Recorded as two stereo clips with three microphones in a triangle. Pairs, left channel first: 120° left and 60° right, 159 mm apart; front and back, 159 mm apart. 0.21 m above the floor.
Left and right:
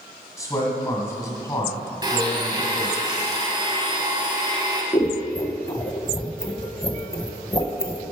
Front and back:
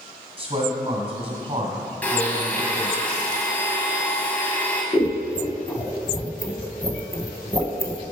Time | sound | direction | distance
0.4 | a man speaking | 175° left | 1.5 m
2.0 | a blender | 65° right | 1.3 m
4.9 | scissors | 65° left | 0.6 m